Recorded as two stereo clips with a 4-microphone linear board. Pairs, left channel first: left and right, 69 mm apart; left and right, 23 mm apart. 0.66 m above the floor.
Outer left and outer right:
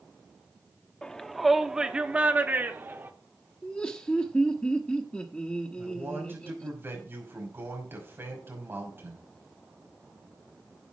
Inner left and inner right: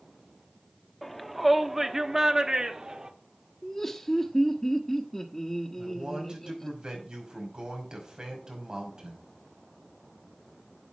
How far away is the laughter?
About 1.0 m.